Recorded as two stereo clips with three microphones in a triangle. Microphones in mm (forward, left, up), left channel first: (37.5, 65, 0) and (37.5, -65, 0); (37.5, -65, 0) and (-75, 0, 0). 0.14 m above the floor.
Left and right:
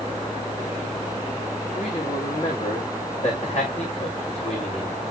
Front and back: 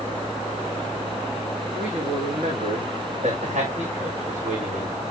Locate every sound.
1.8 s a man speaking: 125° left, 7.5 m